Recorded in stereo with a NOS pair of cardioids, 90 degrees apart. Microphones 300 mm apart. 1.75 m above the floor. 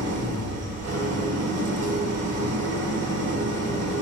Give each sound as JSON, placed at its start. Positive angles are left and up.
{"t": 0.0, "sound": "an engine running", "azimuth_deg": -55, "distance_m": 2.0}